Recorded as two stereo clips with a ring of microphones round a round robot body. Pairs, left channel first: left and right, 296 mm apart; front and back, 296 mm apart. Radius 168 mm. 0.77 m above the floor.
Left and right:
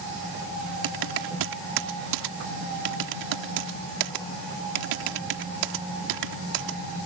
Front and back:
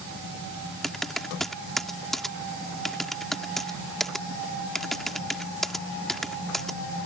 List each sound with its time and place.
0.8 s typing on a keyboard: 90° right